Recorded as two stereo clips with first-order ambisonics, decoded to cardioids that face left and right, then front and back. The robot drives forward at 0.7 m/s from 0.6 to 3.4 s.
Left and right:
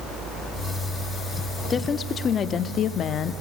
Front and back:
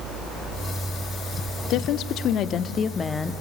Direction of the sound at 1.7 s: 25° left.